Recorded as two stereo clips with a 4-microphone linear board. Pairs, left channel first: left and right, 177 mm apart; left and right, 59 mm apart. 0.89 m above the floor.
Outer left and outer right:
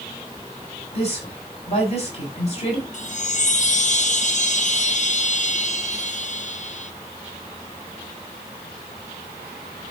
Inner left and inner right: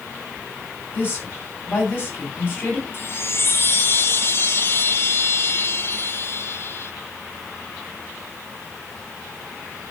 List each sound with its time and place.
0.9 s a woman speaking: 35° left (ahead or behind), 6.5 m
2.9 s a chime: 45° left (ahead or behind), 0.7 m